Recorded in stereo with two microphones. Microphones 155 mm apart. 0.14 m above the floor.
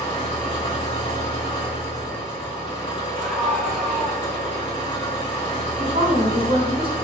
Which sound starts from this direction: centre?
A scream, at 3.2 s.